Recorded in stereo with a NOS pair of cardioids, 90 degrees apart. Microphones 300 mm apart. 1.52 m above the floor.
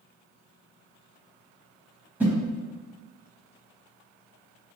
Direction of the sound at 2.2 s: 5° right.